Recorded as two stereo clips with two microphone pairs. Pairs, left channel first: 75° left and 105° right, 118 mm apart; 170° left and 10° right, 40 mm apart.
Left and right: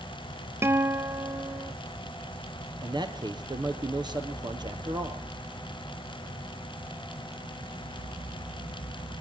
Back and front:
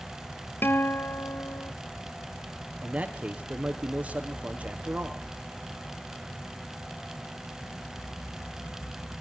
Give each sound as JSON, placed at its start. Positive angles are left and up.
{"t": 0.6, "sound": "a guitar", "azimuth_deg": -175, "distance_m": 0.5}
{"t": 2.8, "sound": "a man speaking", "azimuth_deg": -60, "distance_m": 3.0}